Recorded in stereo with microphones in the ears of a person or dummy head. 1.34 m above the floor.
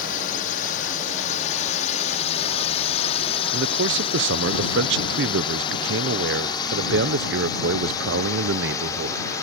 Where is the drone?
45° left (ahead or behind); by 9.4 s 15° left (ahead or behind).